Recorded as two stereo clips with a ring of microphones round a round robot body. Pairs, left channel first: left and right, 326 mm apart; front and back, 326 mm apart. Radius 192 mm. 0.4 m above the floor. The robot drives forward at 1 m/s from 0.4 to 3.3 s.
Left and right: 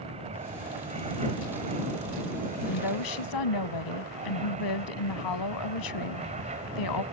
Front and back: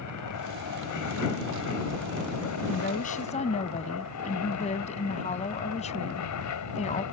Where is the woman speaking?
65° left; by 7.0 s 70° left.